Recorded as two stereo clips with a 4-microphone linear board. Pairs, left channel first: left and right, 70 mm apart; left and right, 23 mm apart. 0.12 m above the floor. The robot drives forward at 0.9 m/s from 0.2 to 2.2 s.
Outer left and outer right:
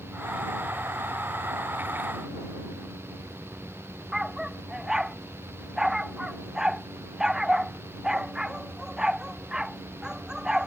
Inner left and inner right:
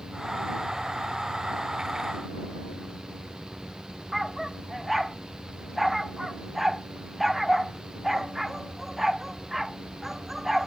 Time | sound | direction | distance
4.1 | a dog barking | 10° right (ahead or behind) | ?